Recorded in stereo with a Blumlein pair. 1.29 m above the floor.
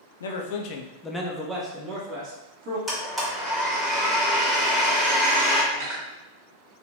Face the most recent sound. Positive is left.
turn(degrees=-55)